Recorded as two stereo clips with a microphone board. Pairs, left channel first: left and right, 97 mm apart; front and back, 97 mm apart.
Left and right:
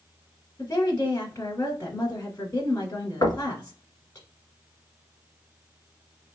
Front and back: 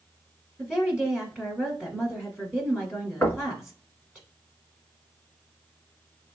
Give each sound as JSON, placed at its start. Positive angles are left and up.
{"t": 0.6, "sound": "a woman speaking", "azimuth_deg": 100, "distance_m": 1.3}
{"t": 3.2, "sound": "knocking", "azimuth_deg": 65, "distance_m": 1.0}